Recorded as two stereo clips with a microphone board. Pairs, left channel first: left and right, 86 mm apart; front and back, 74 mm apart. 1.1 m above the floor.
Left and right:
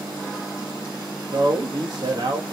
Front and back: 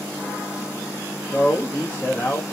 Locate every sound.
1.3 s a man speaking: 70° right, 1.1 m